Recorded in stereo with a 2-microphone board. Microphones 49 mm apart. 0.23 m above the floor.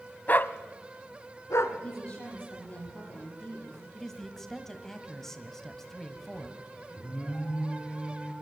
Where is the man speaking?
5° left (ahead or behind), 1.2 m.